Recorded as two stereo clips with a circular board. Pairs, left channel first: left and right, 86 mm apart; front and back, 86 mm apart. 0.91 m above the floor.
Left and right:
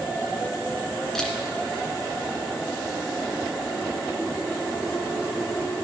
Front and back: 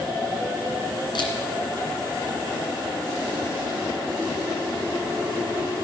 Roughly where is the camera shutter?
Ahead.